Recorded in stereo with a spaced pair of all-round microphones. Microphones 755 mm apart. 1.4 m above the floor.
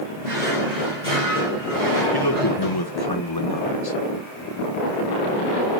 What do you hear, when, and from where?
0.2 s a drawer: 55° right (ahead or behind), 5 m
2.1 s a man speaking: 30° left (ahead or behind), 1.4 m